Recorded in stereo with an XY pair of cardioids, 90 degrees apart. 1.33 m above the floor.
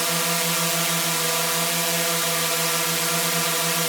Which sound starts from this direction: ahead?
A drone, at 0.0 s.